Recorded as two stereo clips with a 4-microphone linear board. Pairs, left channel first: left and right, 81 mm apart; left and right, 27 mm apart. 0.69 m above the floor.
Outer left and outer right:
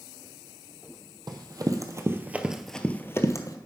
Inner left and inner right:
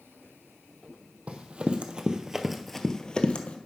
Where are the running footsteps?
60° right (ahead or behind), 1.4 m; by 3.6 s 45° left (ahead or behind), 1.1 m.